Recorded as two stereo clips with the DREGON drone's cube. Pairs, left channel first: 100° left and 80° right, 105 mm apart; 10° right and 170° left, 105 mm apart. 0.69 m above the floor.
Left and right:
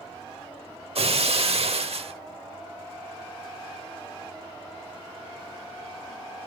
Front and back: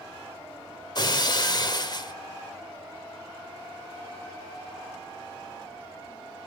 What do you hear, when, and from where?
0.9 s breaking glass: 60° right, 0.8 m